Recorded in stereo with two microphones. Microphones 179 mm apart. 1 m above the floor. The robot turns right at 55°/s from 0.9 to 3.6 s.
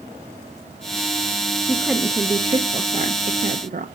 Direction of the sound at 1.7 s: 170° left.